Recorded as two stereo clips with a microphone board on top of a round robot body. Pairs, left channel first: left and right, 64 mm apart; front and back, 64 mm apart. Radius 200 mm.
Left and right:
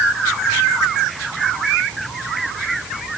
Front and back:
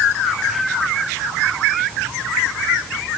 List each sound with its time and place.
Only background noise.